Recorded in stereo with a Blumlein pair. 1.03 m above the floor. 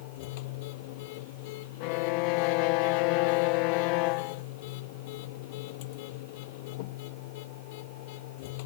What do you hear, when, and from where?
0.0 s a machine running: 50° left
1.8 s a violin: 45° left